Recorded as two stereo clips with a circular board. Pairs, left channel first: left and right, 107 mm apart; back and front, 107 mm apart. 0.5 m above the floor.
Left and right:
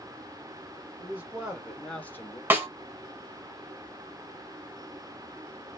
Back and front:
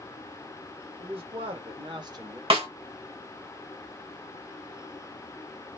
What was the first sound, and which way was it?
A man speaking, 20° right.